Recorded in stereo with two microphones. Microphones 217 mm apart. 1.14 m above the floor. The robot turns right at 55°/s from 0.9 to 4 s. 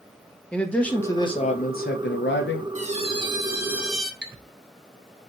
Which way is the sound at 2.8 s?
65° right.